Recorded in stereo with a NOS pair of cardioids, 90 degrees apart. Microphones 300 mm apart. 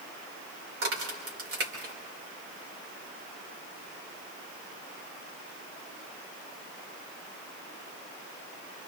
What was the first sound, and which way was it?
A crack, 50° right.